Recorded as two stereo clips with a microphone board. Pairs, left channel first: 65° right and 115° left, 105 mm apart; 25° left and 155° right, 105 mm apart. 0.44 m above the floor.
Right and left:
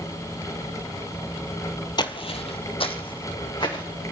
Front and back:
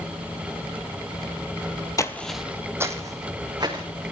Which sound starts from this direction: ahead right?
Footsteps, at 2.0 s.